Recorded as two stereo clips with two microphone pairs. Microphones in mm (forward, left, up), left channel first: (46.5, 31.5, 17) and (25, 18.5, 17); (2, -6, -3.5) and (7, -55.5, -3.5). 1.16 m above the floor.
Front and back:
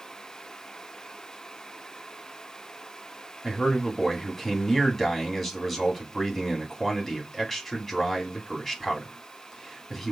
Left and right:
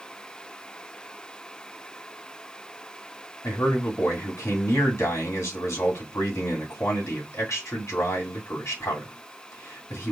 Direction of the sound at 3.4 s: 115° left.